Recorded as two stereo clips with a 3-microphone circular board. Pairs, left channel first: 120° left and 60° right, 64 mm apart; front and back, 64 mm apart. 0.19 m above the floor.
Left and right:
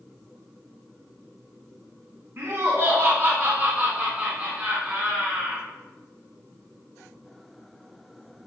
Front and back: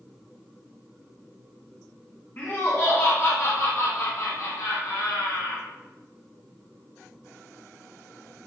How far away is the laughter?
About 1.6 m.